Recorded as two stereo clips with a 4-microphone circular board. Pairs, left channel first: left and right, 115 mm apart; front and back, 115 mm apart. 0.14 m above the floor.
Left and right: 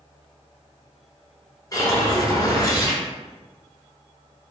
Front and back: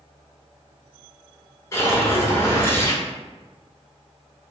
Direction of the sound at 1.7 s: 55° left.